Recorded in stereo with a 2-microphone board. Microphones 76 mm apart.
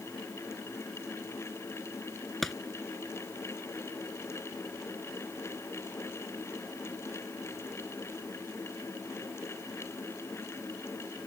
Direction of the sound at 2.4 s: Centre (ahead or behind).